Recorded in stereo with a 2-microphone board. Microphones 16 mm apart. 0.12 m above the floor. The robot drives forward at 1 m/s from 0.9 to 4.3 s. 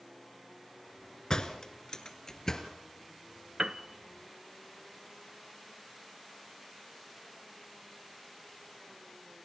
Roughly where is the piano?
Right.